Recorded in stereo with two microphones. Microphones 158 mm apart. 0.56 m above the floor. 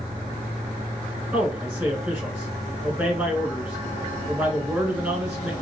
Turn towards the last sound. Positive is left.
turn(degrees=-10)  # may be behind; listen again after turning